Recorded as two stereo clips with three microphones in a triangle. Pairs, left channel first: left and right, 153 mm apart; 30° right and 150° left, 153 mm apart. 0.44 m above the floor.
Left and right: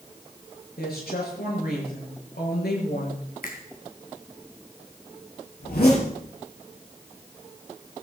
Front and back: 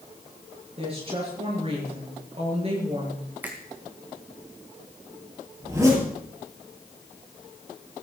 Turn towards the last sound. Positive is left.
turn(degrees=80)